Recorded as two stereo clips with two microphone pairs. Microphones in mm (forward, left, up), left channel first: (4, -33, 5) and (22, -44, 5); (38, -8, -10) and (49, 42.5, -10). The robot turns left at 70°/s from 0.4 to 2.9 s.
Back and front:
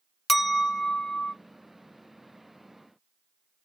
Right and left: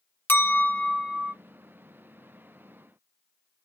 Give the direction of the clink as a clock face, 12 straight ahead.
4 o'clock.